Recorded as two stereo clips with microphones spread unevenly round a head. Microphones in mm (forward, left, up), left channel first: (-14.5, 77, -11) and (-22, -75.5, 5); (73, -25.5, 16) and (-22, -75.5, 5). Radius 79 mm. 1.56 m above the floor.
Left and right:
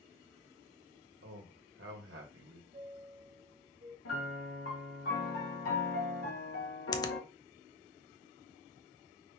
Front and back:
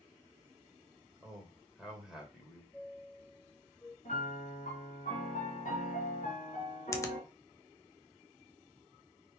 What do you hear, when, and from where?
1.2 s a man speaking: 70° right, 2 m
2.7 s a chime: 45° right, 1.2 m
4.0 s a piano: 80° left, 3.5 m
6.9 s a finger snap: 30° left, 0.7 m